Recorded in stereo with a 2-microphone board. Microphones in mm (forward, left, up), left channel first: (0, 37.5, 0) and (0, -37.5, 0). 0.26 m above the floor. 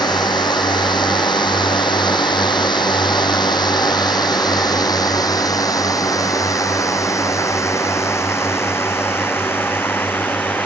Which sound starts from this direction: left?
A drone, at 0.0 s.